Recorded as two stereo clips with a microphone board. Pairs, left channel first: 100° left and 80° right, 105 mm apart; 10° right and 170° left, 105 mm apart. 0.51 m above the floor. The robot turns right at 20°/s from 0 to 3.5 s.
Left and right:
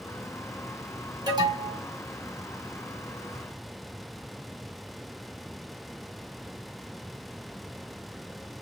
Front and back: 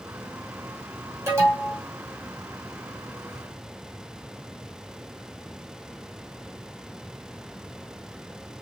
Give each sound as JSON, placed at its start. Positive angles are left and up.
{"t": 1.3, "sound": "an alarm", "azimuth_deg": -125, "distance_m": 2.0}